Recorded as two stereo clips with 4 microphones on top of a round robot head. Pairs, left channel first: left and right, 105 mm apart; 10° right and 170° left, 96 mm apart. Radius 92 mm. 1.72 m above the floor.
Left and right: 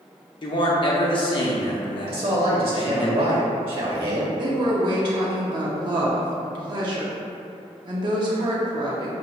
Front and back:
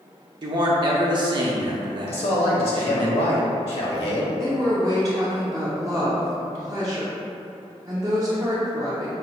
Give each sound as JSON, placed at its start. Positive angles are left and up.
{"t": 0.4, "sound": "a man speaking", "azimuth_deg": 130, "distance_m": 0.7}
{"t": 2.1, "sound": "a man speaking", "azimuth_deg": -40, "distance_m": 0.9}
{"t": 4.4, "sound": "a woman speaking", "azimuth_deg": -125, "distance_m": 0.6}